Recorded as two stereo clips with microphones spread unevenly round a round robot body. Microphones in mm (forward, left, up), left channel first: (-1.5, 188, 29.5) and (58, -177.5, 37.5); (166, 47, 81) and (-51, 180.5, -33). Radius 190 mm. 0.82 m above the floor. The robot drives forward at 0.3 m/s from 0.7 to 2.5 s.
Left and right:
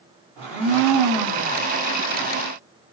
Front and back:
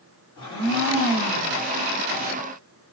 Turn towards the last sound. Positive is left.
turn(degrees=-115)